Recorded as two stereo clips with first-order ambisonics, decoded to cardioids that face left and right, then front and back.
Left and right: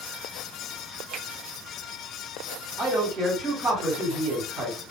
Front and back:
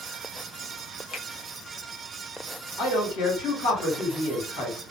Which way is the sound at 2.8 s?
10° right.